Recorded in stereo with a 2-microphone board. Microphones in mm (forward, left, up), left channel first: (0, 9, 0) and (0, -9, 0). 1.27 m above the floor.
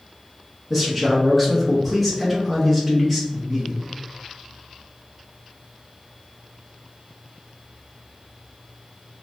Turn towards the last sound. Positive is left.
turn(degrees=10)  # may be behind; listen again after turning